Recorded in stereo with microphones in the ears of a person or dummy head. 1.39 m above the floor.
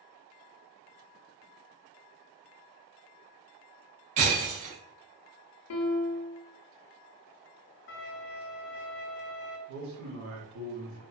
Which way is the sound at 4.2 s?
35° right (ahead or behind).